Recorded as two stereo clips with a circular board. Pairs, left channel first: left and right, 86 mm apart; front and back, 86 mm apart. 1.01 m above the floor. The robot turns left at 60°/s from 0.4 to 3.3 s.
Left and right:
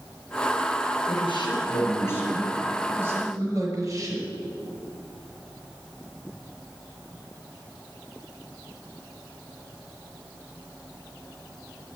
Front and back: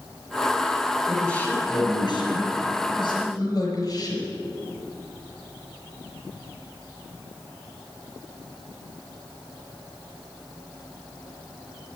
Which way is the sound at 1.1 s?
90° left.